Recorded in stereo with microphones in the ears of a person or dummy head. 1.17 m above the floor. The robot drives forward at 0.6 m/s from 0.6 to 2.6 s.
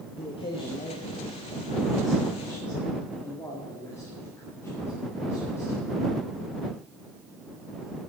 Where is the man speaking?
25° left (ahead or behind), 1.2 m; by 5.9 s 15° left (ahead or behind), 2.5 m.